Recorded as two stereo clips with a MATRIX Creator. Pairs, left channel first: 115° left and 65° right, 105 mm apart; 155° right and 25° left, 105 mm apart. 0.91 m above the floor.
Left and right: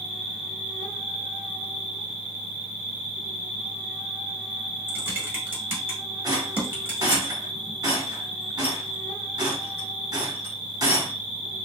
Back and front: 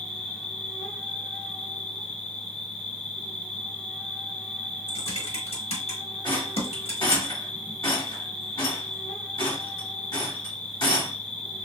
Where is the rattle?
115° right, 1.5 m.